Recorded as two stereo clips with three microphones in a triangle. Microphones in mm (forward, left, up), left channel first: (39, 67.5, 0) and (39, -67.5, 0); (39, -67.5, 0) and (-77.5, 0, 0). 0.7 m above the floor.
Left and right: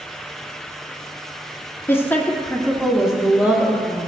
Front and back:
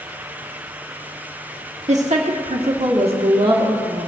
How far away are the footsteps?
I don't hear footsteps.